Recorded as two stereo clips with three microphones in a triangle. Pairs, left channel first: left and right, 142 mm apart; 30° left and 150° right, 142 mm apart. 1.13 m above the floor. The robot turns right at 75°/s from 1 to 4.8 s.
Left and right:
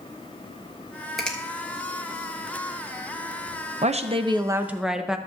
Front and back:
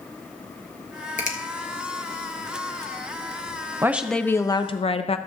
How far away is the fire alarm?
I don't hear a fire alarm.